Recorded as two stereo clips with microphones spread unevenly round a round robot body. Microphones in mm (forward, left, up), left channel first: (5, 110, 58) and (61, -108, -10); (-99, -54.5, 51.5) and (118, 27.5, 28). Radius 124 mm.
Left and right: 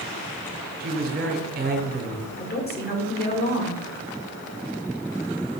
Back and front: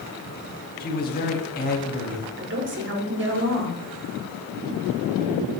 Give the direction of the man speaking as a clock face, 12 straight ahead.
4 o'clock.